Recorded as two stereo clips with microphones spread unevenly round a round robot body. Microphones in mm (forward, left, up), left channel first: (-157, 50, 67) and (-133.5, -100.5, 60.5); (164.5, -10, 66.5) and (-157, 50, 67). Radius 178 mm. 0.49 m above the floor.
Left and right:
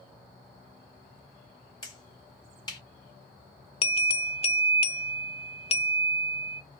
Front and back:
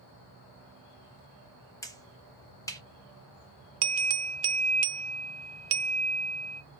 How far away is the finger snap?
About 1.2 m.